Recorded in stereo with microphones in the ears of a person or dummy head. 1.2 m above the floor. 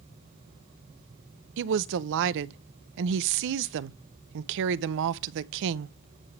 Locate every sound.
1.6 s a woman speaking: 65° right (ahead or behind), 0.6 m